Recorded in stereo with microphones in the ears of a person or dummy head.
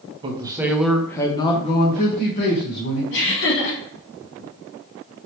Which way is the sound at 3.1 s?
70° left (ahead or behind).